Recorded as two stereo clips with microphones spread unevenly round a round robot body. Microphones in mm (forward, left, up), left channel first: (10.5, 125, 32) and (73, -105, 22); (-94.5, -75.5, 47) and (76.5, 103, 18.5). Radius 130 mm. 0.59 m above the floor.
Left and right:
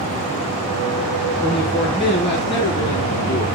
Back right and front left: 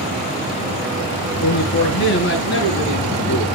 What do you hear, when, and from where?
1.4 s a man speaking: 175° left, 7 m; by 3.5 s straight behind, 8.5 m